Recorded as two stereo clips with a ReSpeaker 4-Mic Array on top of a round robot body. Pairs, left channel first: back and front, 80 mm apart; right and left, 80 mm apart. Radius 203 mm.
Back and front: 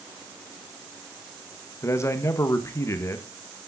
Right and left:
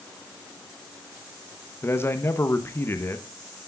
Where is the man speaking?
140° right, 1.5 m.